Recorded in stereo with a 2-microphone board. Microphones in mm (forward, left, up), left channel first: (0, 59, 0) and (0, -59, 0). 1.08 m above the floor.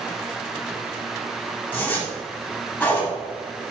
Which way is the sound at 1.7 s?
15° left (ahead or behind).